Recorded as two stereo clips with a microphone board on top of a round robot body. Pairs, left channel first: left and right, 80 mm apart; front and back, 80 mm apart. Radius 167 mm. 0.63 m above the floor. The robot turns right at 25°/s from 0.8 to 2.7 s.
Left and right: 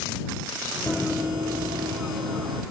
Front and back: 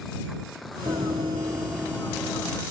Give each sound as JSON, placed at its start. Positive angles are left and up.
{"t": 0.9, "sound": "running footsteps", "azimuth_deg": 155}